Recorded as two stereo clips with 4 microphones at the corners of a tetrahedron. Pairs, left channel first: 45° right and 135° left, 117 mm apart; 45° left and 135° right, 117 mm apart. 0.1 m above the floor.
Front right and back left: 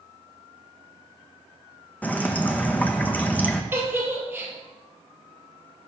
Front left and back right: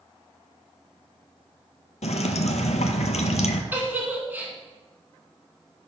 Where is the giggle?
175° left, 1.4 m.